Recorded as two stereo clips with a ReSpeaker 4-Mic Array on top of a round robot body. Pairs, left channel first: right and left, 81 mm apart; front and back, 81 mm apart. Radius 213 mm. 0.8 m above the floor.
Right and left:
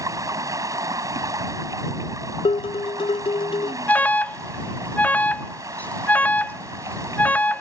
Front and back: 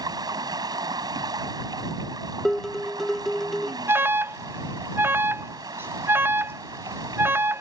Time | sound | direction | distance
0.0 | running water | 140° left | ?
2.5 | dishes clattering | 85° right | ?
3.9 | an alarm | 145° right | ?